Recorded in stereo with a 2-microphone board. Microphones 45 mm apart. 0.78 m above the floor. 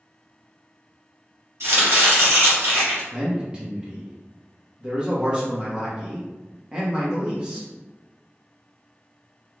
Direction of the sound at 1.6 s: 65° right (ahead or behind).